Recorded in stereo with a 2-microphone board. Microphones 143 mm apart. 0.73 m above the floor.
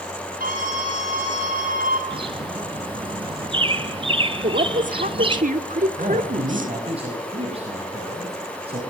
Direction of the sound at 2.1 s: 35° right (ahead or behind).